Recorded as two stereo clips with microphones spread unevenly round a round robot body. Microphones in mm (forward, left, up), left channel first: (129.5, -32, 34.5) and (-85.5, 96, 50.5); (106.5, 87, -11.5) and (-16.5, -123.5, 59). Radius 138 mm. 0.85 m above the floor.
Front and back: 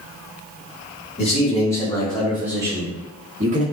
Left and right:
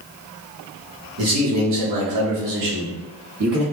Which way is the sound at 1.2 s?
90° right.